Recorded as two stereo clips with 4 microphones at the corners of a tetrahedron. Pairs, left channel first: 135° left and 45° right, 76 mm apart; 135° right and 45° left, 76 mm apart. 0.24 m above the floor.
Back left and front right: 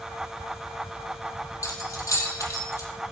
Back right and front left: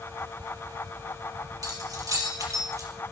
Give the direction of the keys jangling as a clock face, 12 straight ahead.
9 o'clock.